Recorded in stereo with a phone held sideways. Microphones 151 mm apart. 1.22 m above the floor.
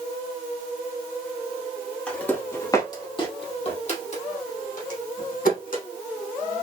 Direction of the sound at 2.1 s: 5° left (ahead or behind).